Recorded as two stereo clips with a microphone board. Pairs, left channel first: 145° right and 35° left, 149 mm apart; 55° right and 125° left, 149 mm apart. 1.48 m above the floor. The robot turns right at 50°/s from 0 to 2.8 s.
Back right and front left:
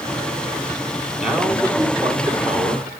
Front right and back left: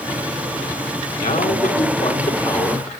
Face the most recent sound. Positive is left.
turn(degrees=25)